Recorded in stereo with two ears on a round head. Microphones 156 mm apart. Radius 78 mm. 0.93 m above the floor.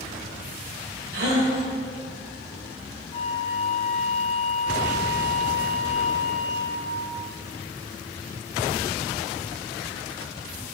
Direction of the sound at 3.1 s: 35° left (ahead or behind).